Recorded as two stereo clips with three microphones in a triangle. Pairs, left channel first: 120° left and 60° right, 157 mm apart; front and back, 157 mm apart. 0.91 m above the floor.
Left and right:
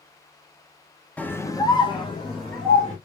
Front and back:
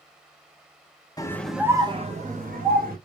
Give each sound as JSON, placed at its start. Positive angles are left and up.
{"t": 1.2, "sound": "a scream", "azimuth_deg": 45, "distance_m": 0.7}